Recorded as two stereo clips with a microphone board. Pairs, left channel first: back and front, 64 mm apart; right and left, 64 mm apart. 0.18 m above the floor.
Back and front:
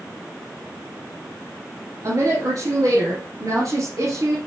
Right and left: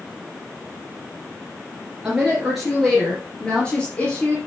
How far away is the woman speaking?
About 2.5 m.